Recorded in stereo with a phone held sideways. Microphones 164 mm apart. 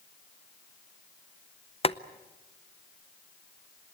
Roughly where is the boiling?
Left.